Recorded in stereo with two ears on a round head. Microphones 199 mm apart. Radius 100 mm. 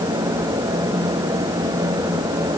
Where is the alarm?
I don't hear an alarm.